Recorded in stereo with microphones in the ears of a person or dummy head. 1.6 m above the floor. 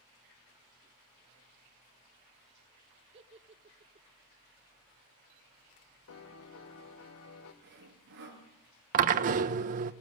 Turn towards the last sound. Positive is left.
turn(degrees=-40)  # may be behind; listen again after turning